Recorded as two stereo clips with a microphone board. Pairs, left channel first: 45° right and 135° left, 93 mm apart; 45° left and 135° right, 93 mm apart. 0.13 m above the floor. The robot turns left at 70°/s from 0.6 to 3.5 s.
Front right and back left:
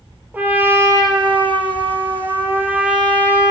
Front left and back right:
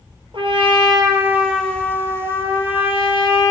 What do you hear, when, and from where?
0.3 s a trumpet: 155° right, 1.2 m; by 3.5 s 5° left, 1.2 m